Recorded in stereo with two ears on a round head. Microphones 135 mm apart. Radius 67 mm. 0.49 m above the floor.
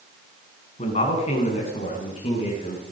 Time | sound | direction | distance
0.8 | a man speaking | 45° left (ahead or behind) | 5 m